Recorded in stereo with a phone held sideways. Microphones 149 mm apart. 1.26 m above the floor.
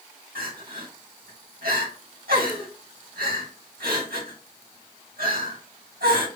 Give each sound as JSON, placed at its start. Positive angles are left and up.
{"t": 0.3, "sound": "crying", "side_deg": -80, "distance_m": 1.8}